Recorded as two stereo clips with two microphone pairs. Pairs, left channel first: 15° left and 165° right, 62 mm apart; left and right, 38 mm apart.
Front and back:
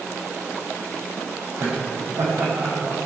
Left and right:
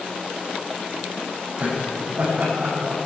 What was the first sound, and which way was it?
Laughter, 130° right.